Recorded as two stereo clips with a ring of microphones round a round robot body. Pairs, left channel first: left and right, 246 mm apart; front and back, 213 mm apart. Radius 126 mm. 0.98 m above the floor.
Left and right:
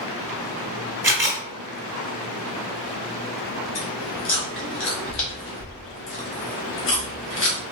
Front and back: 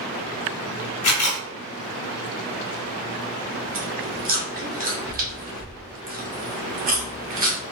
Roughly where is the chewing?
Behind left.